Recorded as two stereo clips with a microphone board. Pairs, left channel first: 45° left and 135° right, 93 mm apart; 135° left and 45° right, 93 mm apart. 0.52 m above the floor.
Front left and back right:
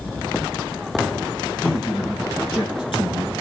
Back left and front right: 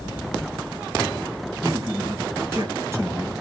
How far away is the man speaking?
About 9.5 m.